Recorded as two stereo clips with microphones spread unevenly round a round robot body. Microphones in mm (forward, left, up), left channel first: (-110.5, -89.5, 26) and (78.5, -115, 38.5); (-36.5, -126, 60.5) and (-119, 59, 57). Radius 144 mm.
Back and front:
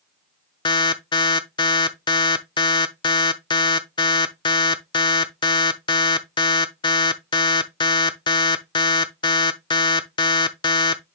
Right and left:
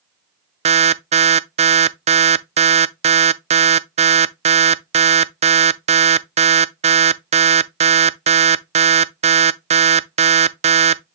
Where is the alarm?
135° left, 0.5 m.